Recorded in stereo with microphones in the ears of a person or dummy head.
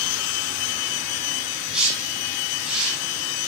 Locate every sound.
1.7 s a whoosh: 5° right (ahead or behind), 9.5 m